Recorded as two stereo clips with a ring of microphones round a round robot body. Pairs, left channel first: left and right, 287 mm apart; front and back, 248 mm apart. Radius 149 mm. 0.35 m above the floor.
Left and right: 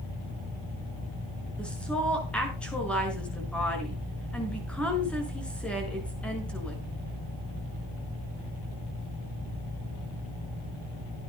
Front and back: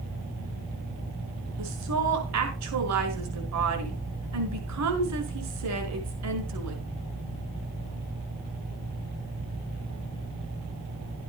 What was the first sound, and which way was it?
A woman speaking, 175° left.